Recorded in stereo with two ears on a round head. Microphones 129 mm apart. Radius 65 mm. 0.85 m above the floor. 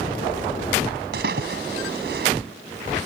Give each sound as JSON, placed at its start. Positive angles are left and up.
{"t": 1.1, "sound": "a splash", "side_deg": -80}